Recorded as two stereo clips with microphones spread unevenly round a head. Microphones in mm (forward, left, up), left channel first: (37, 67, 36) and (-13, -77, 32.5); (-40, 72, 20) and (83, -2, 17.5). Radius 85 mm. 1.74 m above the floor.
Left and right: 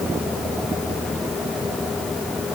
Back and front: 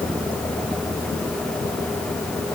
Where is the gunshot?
I don't hear a gunshot.